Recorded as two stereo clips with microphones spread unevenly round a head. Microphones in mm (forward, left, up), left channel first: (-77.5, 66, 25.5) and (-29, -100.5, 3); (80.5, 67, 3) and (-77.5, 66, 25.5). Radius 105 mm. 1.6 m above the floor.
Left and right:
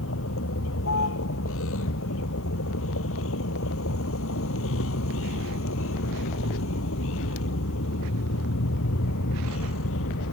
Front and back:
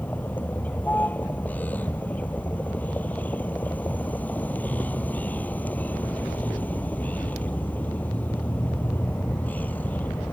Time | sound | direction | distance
0.0 | a vehicle | 80° left | ?